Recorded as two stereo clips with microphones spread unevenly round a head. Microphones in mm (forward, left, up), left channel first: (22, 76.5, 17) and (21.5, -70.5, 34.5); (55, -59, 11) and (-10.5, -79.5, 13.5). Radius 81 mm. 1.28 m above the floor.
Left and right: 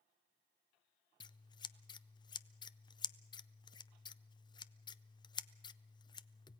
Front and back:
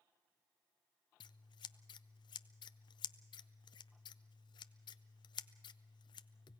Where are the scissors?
30° left, 0.5 m.